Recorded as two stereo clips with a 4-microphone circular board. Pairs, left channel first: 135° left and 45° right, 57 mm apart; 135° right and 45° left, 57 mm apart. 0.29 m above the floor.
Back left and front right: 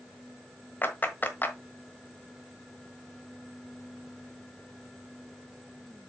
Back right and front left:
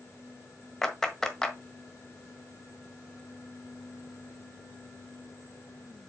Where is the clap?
150° left, 1.3 m.